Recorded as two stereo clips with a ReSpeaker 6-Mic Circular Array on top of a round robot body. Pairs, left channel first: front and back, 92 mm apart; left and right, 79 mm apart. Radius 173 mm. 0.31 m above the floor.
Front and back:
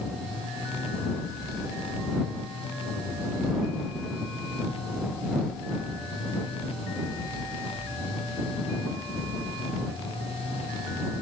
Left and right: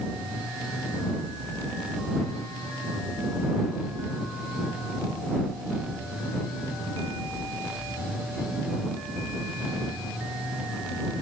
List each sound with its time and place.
Only background noise.